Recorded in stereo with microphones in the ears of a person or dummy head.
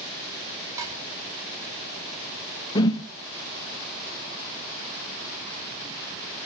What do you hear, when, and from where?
0.8 s dishes clattering: 15° right (ahead or behind), 4.5 m
2.8 s a whoosh: 25° left (ahead or behind), 0.6 m